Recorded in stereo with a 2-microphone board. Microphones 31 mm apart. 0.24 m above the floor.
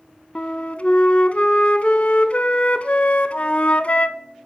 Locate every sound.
0.3 s a flute: 45° left (ahead or behind), 0.6 m